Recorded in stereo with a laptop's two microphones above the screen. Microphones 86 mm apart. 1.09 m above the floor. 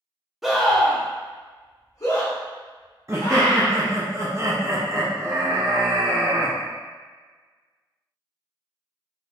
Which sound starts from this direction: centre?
A scream, at 0.4 s.